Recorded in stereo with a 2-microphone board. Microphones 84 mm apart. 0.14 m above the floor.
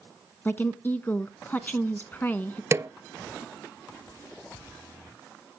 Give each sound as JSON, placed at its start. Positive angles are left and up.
{"t": 0.5, "sound": "a woman speaking", "side_deg": 25, "distance_m": 1.1}
{"t": 2.7, "sound": "a snare drum", "side_deg": -35, "distance_m": 0.6}